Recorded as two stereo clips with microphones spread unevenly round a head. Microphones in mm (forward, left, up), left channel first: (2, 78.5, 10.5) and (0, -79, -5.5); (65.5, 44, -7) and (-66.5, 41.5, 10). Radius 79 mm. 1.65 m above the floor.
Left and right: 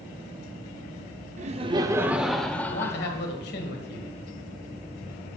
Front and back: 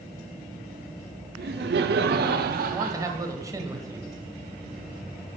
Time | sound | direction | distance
1.4 | laughter | 140° right | 0.6 m
2.7 | a man speaking | 115° left | 1.4 m